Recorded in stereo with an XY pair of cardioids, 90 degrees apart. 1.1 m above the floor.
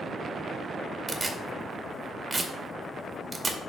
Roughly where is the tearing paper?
Ahead.